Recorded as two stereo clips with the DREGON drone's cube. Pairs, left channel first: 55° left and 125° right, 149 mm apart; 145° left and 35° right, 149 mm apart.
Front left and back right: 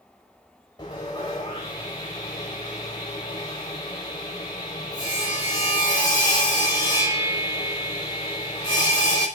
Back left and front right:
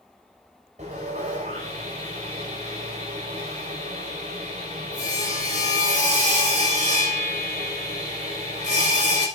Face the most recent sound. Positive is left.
turn(degrees=0)